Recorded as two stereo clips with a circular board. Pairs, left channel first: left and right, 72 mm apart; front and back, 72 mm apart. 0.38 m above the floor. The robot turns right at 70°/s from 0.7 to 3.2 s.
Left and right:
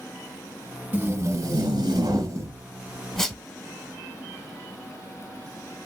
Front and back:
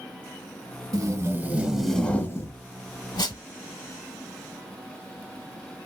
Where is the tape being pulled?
155° right, 0.7 m; by 3.4 s 5° left, 0.7 m.